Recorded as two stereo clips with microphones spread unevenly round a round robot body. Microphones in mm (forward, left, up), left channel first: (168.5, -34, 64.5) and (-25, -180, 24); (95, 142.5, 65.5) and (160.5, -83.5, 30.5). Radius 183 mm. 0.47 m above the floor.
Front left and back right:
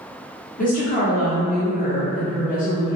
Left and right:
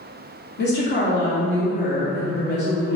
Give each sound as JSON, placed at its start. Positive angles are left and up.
{"t": 0.6, "sound": "a woman speaking", "azimuth_deg": 85, "distance_m": 1.4}